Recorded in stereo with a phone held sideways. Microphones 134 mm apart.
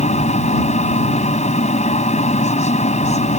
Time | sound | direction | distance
0.0 | a machine running | 60° left (ahead or behind) | ?